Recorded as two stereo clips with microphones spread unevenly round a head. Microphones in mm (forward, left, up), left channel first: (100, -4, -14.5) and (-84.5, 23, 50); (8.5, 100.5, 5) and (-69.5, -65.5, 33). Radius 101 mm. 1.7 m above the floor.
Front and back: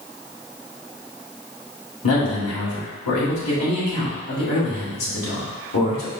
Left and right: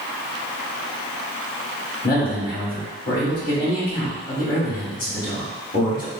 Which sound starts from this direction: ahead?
A man speaking, at 2.0 s.